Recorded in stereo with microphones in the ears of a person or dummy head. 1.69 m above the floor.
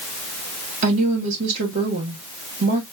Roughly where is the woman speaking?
Right.